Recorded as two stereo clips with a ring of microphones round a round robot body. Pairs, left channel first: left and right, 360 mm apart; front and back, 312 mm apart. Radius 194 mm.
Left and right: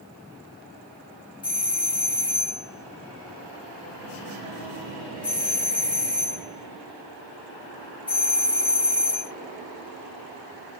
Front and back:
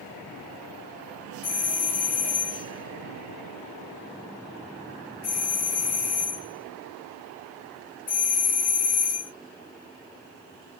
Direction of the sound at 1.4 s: 15° left.